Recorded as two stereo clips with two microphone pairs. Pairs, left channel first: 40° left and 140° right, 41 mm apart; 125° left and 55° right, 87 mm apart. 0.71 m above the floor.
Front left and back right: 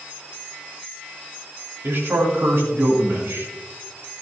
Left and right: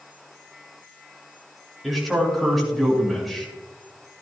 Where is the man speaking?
145° right, 5.5 m.